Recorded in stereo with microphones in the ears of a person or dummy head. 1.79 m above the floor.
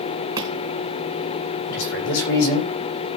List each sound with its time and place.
0.4 s chopping: 20° right (ahead or behind), 3.5 m
1.7 s a man speaking: 80° left, 5.5 m